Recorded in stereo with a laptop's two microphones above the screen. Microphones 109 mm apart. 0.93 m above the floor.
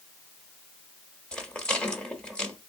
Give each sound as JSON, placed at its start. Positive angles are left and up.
{"t": 1.3, "sound": "a rattle", "side_deg": 10, "distance_m": 1.1}